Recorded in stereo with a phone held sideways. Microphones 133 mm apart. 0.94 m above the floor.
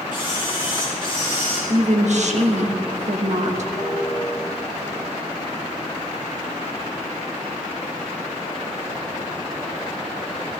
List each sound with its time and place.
0.1 s a camera shutter: 40° left (ahead or behind), 5.5 m
1.7 s a woman speaking: 60° right (ahead or behind), 1.5 m
3.8 s a piano: 55° right (ahead or behind), 6 m